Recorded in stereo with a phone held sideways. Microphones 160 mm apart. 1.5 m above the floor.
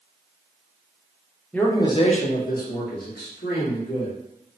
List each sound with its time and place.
1.5 s a man speaking: 5° left (ahead or behind), 0.6 m; by 4.1 s 80° left, 1.3 m